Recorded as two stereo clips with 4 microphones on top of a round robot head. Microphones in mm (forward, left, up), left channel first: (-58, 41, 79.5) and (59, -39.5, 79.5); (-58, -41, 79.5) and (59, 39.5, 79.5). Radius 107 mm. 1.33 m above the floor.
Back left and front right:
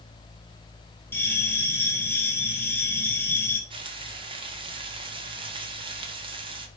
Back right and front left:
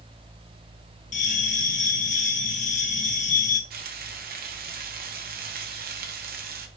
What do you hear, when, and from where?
1.1 s a bell: 145° right, 0.6 m
3.7 s frying: 20° left, 1.6 m